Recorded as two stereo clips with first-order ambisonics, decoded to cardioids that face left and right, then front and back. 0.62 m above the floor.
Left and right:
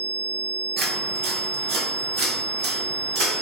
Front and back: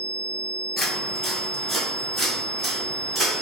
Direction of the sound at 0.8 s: 65° right.